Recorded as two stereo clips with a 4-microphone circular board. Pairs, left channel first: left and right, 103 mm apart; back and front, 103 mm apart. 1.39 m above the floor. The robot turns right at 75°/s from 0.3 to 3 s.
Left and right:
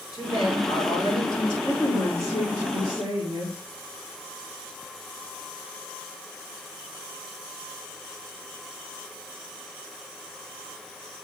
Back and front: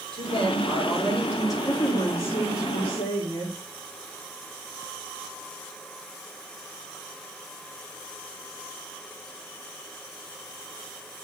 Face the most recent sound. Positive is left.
turn(degrees=-130)